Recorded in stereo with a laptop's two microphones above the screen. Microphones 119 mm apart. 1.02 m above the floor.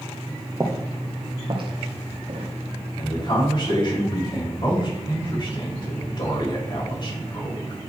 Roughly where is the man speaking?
Left.